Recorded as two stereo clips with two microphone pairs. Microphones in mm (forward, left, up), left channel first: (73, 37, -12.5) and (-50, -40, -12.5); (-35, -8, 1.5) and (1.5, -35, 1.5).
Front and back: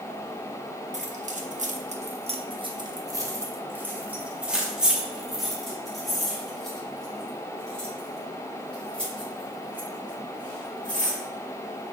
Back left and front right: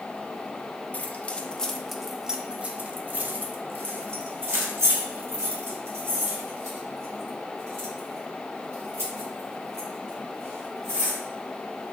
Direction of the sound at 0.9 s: 170° right.